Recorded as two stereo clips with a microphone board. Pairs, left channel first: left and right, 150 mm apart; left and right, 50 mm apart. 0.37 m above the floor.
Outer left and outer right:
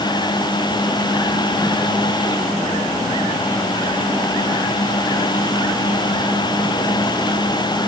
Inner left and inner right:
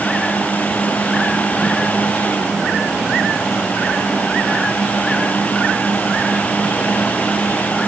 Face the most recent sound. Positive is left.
No sound to turn to.